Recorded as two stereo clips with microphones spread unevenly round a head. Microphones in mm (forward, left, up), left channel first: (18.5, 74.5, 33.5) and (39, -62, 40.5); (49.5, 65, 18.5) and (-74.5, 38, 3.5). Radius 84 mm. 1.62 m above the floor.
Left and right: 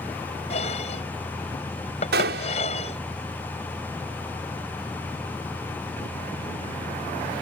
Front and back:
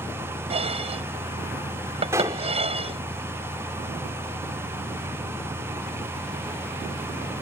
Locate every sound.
0.5 s dishes clattering: 150° left
2.1 s a gunshot: 90° right